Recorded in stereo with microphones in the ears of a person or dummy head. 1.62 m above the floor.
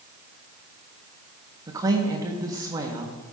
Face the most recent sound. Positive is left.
turn(degrees=-25)  # may be behind; listen again after turning